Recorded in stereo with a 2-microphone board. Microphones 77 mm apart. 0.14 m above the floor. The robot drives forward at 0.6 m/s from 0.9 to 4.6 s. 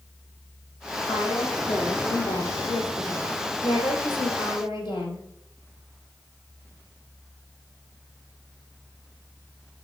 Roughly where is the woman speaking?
Left.